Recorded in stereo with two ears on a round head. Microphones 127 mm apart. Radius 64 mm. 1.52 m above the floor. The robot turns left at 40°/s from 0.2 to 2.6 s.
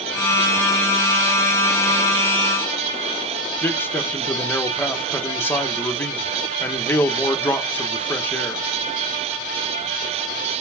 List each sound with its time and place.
3.6 s a man speaking: 15° left (ahead or behind), 1.2 m